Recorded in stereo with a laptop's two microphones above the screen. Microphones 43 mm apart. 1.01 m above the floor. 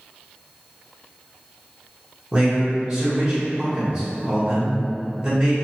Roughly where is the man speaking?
Right.